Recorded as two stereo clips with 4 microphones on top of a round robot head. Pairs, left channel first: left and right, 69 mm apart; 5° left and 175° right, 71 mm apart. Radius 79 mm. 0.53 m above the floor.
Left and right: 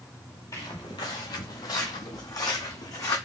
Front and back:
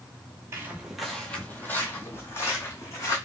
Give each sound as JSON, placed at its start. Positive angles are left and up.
{"t": 0.5, "sound": "footsteps", "azimuth_deg": 150, "distance_m": 0.6}